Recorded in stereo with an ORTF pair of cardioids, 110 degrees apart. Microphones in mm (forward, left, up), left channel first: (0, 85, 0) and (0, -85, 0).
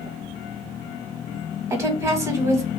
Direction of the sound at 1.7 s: 20° right.